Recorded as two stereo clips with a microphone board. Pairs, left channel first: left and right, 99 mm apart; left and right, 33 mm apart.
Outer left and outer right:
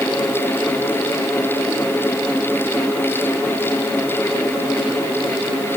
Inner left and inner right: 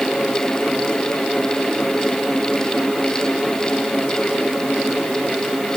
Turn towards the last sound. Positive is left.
No sound to turn to.